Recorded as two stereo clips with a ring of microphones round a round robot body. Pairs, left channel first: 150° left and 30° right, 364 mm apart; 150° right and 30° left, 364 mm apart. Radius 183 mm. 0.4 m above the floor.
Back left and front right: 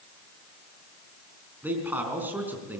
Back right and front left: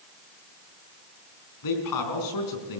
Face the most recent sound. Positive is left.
turn(degrees=-115)